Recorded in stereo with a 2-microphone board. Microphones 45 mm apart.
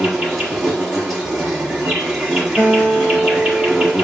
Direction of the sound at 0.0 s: 15° right (ahead or behind).